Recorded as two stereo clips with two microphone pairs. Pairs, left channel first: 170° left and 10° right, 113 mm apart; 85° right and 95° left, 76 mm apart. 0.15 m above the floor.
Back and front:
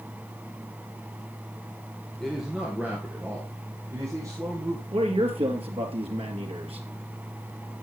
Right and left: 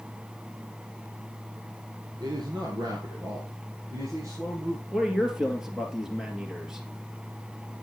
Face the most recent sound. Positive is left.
turn(degrees=15)